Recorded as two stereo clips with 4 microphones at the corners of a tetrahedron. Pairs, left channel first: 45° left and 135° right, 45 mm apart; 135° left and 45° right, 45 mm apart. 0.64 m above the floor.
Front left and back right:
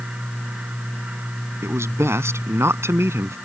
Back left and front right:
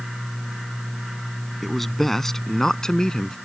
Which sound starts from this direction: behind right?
A man speaking, at 1.6 s.